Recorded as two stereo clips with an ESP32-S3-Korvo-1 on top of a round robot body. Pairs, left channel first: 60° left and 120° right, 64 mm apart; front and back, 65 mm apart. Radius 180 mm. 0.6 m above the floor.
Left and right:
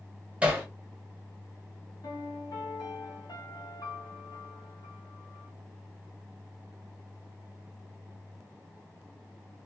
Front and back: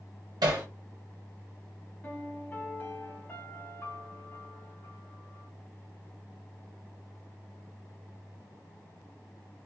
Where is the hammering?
165° left, 1.5 m.